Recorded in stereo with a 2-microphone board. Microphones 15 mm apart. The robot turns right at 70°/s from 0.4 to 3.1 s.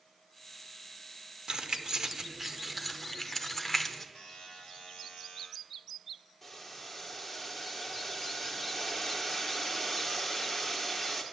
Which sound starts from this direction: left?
A buzzer, at 4.2 s.